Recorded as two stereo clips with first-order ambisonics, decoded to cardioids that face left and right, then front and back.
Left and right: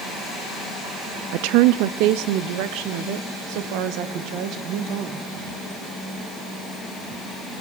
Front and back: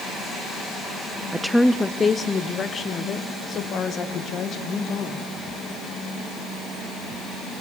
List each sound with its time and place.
1.3 s a woman speaking: 100° right, 0.5 m; by 5.3 s 60° right, 2.5 m